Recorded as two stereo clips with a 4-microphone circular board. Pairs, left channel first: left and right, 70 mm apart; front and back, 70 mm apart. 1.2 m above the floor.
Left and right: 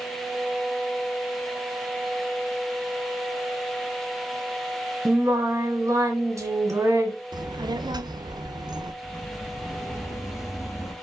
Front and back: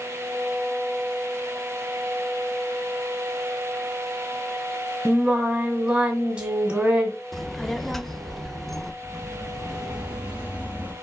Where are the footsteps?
85° left, 2.5 m; by 10.9 s 120° left, 1.6 m.